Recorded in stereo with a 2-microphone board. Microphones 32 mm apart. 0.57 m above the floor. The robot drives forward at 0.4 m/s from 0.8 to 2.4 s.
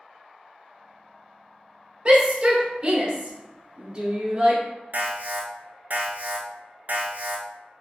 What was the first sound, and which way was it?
A shout, 30° right (ahead or behind).